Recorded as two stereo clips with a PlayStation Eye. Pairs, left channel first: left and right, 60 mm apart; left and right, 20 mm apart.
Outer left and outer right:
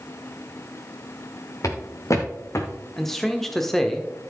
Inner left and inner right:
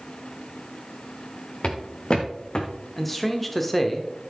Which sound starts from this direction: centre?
A man speaking, at 3.0 s.